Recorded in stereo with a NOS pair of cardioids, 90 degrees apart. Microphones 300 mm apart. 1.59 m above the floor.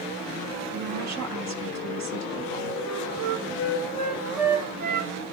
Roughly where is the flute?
Ahead right.